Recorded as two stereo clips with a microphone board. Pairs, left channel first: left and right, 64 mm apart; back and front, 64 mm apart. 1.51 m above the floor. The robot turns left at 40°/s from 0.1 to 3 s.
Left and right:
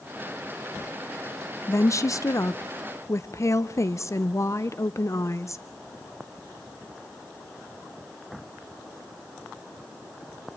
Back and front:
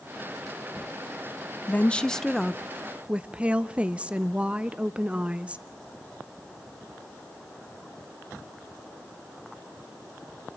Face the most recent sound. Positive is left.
turn(degrees=65)